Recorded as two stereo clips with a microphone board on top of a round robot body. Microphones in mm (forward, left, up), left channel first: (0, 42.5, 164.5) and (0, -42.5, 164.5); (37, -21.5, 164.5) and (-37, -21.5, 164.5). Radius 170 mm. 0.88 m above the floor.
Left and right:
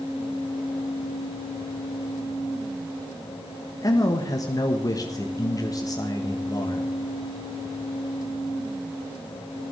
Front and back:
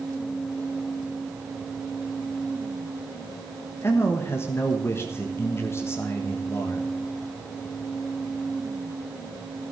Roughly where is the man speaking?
Ahead left.